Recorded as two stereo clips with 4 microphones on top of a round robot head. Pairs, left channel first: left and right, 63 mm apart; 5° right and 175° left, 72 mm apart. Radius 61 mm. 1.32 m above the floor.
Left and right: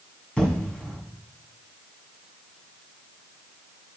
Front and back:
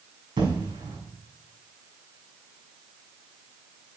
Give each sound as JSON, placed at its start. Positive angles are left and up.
{"t": 0.4, "sound": "an explosion", "azimuth_deg": 160, "distance_m": 5.0}